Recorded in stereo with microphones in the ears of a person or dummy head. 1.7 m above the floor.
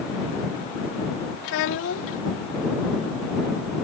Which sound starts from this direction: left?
A child speaking, at 1.4 s.